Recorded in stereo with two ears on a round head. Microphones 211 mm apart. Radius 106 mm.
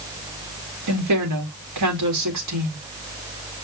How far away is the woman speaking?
About 3.5 m.